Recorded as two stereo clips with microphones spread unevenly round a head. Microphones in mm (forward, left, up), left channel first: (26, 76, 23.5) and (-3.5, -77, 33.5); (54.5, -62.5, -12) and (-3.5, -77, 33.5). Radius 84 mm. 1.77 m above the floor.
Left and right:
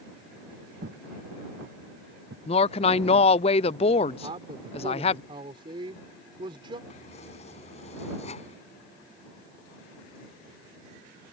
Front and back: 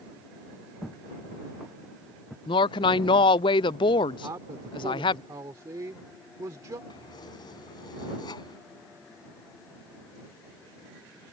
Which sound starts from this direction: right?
Footsteps, at 0.8 s.